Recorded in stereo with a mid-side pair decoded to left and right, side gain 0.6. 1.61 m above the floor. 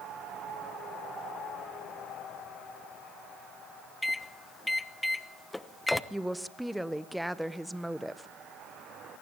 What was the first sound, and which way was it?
A microwave, 10° left.